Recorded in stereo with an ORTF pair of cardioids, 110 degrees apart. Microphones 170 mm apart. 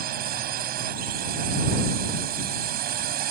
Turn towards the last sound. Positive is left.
turn(degrees=-65)